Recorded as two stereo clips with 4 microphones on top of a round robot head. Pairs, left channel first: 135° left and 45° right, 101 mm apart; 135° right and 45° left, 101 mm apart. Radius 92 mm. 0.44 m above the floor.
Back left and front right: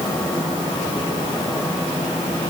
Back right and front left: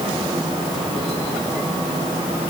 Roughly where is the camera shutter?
No camera shutter in this recording.